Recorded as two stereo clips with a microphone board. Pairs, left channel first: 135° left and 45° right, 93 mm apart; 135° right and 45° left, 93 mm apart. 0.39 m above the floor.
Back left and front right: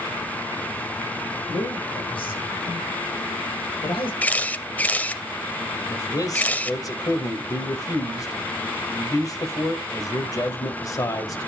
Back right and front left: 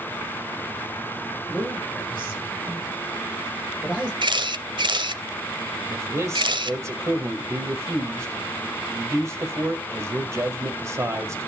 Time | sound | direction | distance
1.5 | a man speaking | 120° left | 6.5 m
4.2 | a camera shutter | 65° left | 0.7 m
5.9 | a man speaking | 95° left | 1.7 m